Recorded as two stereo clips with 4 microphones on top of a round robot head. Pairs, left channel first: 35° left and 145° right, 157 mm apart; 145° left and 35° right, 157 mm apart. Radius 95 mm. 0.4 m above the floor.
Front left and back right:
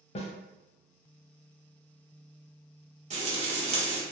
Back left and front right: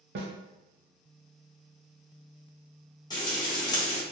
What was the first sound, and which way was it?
A snare drum, 15° right.